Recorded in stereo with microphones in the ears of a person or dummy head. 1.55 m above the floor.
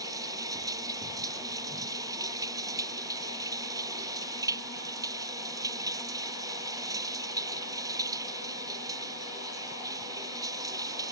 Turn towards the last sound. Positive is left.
turn(degrees=-20)  # may be behind; listen again after turning